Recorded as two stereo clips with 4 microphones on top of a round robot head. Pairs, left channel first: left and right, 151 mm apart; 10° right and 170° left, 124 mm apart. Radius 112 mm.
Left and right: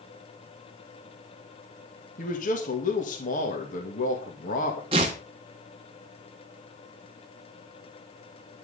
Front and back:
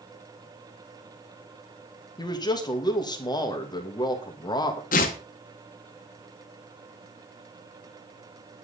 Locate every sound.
2.2 s a man speaking: 45° left, 2.5 m
4.9 s tearing paper: 30° right, 1.5 m